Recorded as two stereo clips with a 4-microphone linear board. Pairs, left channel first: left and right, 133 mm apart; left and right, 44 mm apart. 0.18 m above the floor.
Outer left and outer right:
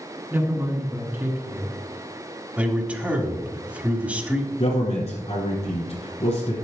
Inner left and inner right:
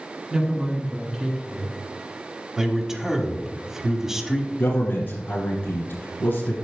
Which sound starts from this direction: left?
A man speaking, at 4.6 s.